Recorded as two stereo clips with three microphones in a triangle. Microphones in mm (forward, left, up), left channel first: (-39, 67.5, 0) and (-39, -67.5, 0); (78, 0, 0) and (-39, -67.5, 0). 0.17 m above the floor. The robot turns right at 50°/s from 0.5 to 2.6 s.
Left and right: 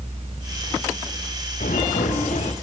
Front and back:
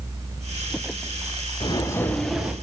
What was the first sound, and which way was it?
Footsteps, 85° left.